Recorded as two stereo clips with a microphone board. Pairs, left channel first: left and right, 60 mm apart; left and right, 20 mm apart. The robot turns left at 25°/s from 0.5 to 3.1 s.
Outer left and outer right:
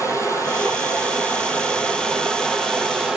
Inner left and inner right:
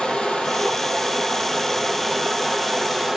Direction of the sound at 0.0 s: 55° left.